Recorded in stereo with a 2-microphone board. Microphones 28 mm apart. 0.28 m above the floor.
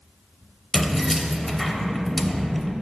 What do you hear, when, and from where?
0.7 s keys jangling: 5° left (ahead or behind), 0.6 m